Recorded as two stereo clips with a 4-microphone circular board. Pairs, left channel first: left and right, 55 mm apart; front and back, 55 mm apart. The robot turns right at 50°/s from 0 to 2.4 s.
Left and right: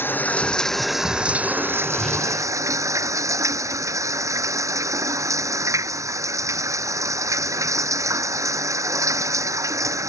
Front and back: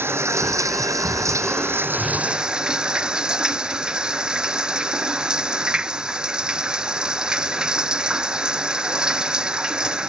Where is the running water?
135° left; by 10.1 s 105° right.